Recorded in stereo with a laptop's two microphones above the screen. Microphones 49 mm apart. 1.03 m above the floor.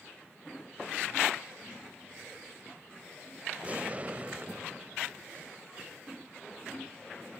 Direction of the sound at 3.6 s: 30° right (ahead or behind).